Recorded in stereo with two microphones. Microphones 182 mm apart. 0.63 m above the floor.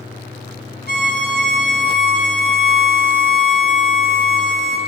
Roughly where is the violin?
Right.